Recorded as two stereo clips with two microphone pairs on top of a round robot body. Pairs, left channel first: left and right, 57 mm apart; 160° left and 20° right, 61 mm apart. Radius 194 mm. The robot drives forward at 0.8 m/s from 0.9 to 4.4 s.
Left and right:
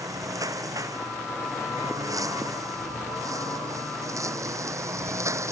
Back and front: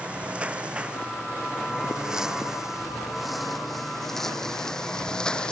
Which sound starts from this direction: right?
A lawn mower, at 0.0 s.